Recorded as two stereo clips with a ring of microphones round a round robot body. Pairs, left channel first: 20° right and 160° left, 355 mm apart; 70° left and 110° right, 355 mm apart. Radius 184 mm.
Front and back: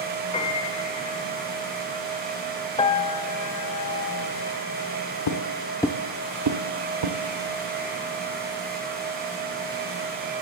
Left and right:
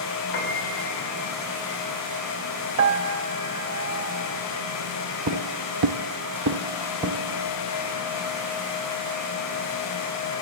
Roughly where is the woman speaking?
I don't hear a woman speaking.